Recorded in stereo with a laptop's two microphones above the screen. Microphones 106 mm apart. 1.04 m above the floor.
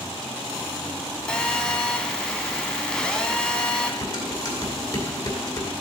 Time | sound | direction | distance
1.3 | a phone buzzing | 5° left (ahead or behind) | 1.9 m
4.0 | dishes clattering | 45° left (ahead or behind) | 2.5 m